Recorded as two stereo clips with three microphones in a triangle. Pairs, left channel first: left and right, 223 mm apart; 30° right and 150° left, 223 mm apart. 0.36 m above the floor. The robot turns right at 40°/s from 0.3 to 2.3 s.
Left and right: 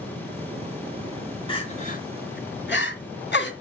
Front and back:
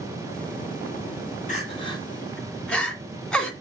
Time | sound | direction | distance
1.5 | crying | 25° left | 2.5 m